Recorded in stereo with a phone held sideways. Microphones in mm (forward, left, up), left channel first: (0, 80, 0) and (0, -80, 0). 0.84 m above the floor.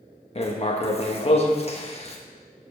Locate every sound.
0.3 s writing: 40° left (ahead or behind), 1.2 m